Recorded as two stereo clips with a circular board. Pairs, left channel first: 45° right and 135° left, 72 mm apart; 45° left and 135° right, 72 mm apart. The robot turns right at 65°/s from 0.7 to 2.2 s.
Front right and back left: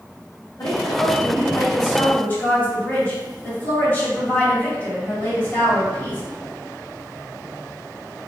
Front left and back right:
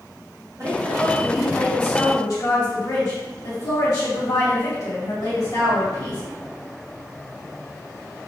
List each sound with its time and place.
0.6 s a woman speaking: 80° right, 1.9 m; by 6.2 s 20° left, 1.9 m